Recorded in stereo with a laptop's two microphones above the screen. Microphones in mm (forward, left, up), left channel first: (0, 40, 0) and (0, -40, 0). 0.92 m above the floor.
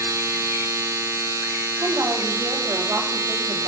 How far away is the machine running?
About 0.9 m.